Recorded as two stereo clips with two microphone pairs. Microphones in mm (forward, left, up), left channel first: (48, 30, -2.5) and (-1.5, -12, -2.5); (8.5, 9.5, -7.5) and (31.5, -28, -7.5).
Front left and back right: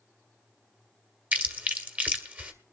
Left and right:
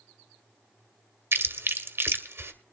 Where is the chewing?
75° right, 1.7 m.